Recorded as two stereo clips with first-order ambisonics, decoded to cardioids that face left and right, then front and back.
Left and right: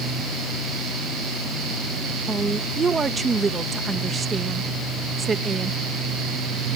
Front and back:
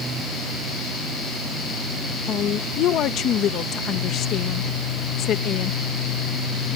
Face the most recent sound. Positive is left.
turn(degrees=-25)